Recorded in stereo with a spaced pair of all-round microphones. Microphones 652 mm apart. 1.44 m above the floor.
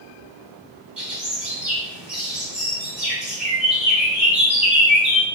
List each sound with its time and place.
1.0 s a bird: 40° right (ahead or behind), 1.4 m